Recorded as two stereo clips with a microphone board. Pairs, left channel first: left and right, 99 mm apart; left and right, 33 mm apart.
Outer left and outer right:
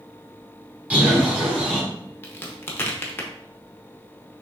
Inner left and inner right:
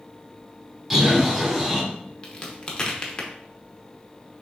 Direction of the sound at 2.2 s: 25° left (ahead or behind).